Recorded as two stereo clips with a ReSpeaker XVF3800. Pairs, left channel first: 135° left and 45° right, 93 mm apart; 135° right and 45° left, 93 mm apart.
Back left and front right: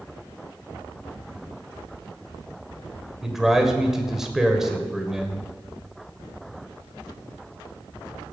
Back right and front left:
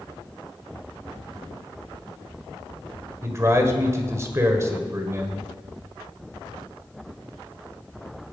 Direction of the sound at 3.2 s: 35° left.